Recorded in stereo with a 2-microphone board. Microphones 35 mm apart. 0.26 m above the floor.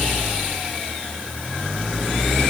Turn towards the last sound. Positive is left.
No sound to turn to.